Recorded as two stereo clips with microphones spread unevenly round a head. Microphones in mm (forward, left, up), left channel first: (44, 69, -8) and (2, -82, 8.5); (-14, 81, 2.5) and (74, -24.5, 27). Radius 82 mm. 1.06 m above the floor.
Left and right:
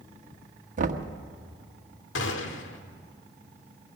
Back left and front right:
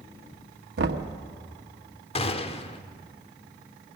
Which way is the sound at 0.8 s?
65° right.